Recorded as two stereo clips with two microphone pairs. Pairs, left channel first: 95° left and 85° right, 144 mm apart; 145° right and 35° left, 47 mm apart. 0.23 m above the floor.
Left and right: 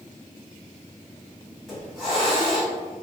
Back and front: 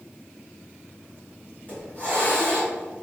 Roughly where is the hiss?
Behind.